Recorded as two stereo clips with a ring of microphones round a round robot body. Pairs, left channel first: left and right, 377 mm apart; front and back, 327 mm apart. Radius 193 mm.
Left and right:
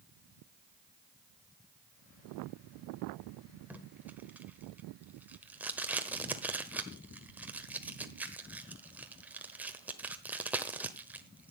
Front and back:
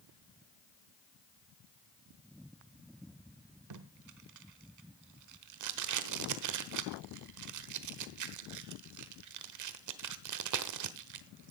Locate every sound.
3.7 s tape being pulled: 175° right, 1.1 m